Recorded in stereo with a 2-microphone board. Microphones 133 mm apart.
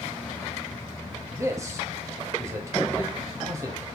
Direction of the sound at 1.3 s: 25° right (ahead or behind).